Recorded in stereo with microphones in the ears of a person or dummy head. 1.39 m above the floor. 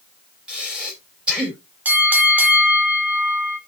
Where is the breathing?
5° right (ahead or behind), 3 m.